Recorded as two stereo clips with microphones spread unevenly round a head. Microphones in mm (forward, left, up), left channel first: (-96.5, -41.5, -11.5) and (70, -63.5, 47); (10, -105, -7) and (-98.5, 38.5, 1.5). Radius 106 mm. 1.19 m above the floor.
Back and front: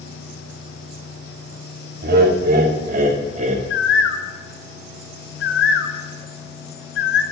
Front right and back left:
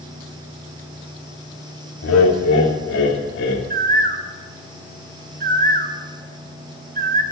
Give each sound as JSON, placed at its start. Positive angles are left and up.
{"t": 2.0, "sound": "laughter", "azimuth_deg": -35, "distance_m": 3.0}
{"t": 3.7, "sound": "a bird", "azimuth_deg": 165, "distance_m": 1.2}